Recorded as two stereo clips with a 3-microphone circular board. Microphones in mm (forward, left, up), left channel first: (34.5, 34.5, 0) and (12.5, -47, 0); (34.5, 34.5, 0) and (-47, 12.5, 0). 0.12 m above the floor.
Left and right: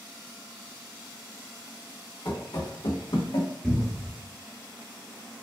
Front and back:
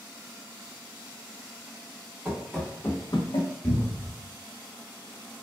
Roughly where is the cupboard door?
Ahead.